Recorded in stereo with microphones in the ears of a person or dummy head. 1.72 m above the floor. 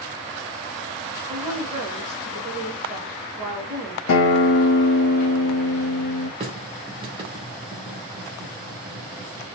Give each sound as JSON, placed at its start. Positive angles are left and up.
{"t": 1.3, "sound": "a woman speaking", "side_deg": -30, "distance_m": 1.5}
{"t": 4.1, "sound": "a guitar", "side_deg": 70, "distance_m": 0.8}
{"t": 6.4, "sound": "a running tap", "side_deg": -25, "distance_m": 0.9}